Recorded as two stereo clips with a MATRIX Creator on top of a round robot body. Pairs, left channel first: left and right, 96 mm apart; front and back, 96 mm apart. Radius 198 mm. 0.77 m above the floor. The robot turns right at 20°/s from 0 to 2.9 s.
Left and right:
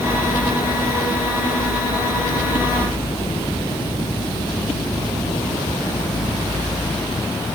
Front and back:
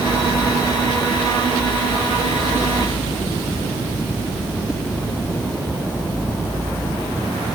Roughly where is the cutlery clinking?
I don't hear cutlery clinking.